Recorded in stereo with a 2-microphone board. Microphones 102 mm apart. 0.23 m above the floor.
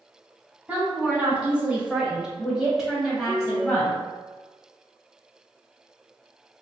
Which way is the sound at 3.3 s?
15° right (ahead or behind).